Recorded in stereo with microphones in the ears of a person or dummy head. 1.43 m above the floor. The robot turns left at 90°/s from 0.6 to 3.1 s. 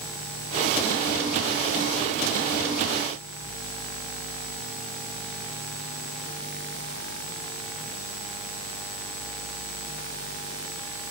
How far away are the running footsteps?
No running footsteps in this recording.